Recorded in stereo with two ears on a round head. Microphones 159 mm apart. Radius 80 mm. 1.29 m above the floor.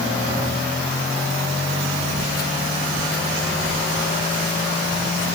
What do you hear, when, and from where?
2.2 s footsteps: 50° left (ahead or behind), 2.0 m; by 5.3 s 60° left (ahead or behind), 5 m